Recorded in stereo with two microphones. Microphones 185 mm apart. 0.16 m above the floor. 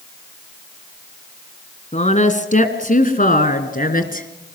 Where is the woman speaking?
40° left (ahead or behind), 2.0 m; by 4.3 s 50° left (ahead or behind), 2.5 m.